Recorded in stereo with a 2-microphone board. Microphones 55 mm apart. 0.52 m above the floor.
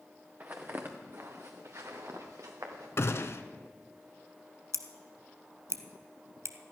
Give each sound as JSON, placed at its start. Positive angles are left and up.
{"t": 0.4, "sound": "footsteps", "side_deg": -35, "distance_m": 2.0}
{"t": 3.0, "sound": "a gunshot", "side_deg": 55, "distance_m": 0.8}
{"t": 4.7, "sound": "scissors", "side_deg": -65, "distance_m": 0.9}